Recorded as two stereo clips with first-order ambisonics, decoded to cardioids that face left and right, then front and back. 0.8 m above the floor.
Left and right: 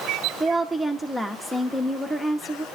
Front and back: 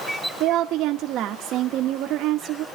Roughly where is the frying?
No frying in this recording.